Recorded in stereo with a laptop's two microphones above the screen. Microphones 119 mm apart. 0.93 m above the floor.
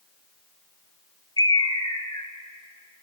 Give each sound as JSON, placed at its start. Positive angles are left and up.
{"t": 1.4, "sound": "a bird", "side_deg": 35, "distance_m": 1.0}